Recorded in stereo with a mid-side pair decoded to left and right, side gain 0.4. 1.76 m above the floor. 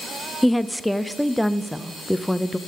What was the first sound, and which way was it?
A woman speaking, 5° left.